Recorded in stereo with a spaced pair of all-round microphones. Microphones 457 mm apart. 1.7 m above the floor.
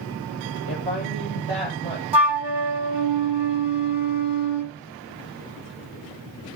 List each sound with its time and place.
0.7 s a woman speaking: 70° right (ahead or behind), 10 m; by 2.0 s 75° right (ahead or behind), 10 m
2.1 s a flute: 65° right (ahead or behind), 1.2 m